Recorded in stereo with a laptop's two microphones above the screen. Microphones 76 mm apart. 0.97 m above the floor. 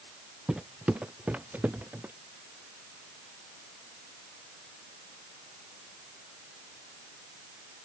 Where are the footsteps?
10° right (ahead or behind); by 2.1 s 25° right (ahead or behind).